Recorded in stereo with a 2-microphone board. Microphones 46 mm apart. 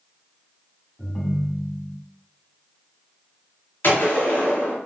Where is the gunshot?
45° left (ahead or behind), 1.4 m.